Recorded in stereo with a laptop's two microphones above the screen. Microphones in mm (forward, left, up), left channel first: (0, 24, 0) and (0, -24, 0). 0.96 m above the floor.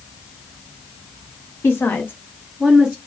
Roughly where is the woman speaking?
Left.